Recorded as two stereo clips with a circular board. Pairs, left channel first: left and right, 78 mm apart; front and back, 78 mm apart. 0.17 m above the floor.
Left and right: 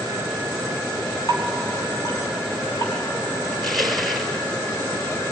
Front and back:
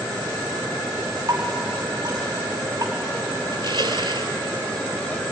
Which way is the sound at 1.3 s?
135° left.